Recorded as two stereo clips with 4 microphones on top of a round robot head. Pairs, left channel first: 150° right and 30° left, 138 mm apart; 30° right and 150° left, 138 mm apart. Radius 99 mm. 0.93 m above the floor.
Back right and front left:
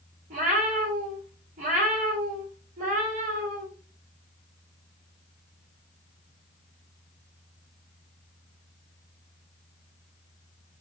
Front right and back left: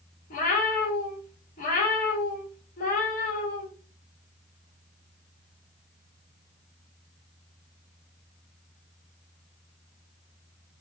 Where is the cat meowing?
5° right, 0.9 m.